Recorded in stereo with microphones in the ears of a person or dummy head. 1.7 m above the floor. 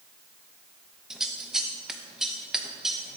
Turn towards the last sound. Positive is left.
turn(degrees=-5)  # may be behind; listen again after turning